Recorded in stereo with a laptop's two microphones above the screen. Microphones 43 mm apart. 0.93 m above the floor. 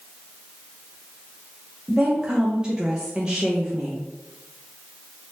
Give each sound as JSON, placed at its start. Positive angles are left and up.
{"t": 1.9, "sound": "a woman speaking", "side_deg": -20, "distance_m": 0.5}